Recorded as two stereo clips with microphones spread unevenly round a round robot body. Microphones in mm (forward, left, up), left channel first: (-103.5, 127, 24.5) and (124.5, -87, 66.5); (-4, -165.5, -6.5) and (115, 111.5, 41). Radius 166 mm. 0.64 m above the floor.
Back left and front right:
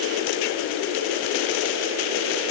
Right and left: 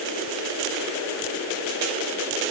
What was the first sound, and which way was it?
Only background noise.